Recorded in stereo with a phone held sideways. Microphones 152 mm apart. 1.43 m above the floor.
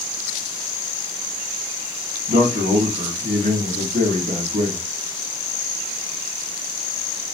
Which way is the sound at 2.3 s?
65° right (ahead or behind).